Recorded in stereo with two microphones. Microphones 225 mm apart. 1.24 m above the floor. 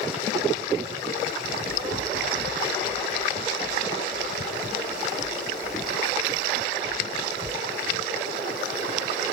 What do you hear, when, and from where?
1.4 s running footsteps: 35° left (ahead or behind), 3 m; by 7.6 s 30° right (ahead or behind), 1.4 m